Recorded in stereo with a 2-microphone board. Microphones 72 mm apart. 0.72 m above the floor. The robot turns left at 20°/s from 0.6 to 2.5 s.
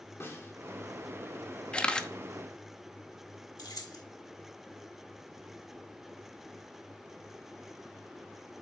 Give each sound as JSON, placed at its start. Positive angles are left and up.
{"t": 0.2, "sound": "a snare drum", "side_deg": 35, "distance_m": 2.0}
{"t": 1.7, "sound": "a camera shutter", "side_deg": 15, "distance_m": 0.8}
{"t": 3.6, "sound": "keys jangling", "side_deg": 65, "distance_m": 1.2}